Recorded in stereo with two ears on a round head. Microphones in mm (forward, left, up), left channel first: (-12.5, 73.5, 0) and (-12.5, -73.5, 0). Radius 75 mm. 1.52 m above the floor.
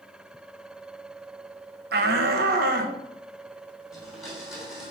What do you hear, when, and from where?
1.9 s a shout: 65° right (ahead or behind), 0.9 m; by 3.0 s 60° right (ahead or behind), 1.4 m
3.9 s a blender: centre (ahead or behind), 3 m